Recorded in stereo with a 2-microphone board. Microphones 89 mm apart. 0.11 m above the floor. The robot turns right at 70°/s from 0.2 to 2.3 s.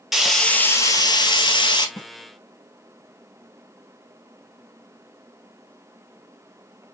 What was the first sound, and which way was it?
Frying, 5° right.